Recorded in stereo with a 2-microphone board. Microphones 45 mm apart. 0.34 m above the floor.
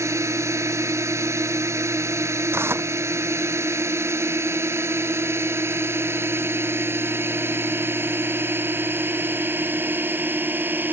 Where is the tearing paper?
60° right (ahead or behind).